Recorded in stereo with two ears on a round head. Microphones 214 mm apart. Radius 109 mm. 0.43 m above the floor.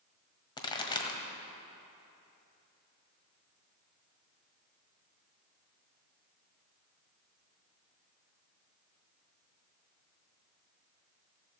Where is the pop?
20° left (ahead or behind), 1.5 m.